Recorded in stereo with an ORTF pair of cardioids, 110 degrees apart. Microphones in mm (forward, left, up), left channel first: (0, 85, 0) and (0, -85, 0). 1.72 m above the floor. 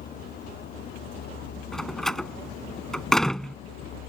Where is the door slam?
Straight ahead.